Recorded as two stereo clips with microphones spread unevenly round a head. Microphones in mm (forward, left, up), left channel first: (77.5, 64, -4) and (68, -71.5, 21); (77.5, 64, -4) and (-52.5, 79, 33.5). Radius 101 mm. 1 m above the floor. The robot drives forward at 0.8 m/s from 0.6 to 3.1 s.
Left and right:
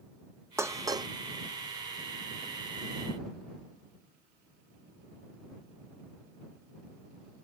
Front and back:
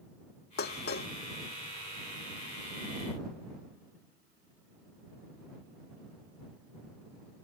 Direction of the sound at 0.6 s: 25° right.